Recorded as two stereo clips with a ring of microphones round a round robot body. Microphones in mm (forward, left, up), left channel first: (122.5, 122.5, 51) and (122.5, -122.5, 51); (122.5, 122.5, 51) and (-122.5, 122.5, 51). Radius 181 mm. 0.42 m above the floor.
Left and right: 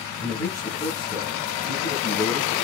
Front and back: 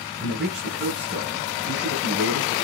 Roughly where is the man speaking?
Behind left.